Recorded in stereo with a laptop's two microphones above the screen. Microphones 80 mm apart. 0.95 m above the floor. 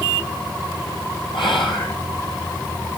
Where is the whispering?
75° left (ahead or behind), 3.5 m.